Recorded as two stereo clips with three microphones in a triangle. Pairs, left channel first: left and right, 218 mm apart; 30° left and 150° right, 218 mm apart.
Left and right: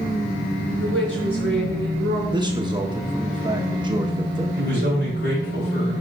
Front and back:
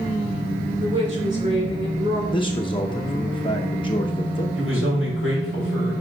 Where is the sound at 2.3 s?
30° right, 0.8 m.